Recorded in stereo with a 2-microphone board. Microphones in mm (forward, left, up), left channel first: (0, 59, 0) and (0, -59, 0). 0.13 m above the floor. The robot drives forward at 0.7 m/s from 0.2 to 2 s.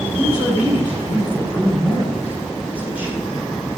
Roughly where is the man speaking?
Centre.